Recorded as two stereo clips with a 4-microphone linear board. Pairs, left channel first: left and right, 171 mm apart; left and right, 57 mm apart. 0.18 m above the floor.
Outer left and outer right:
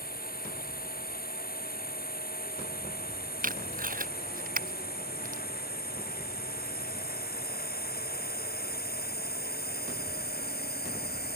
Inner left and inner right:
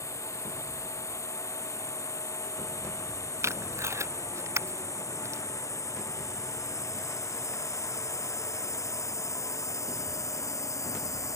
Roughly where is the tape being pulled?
Right.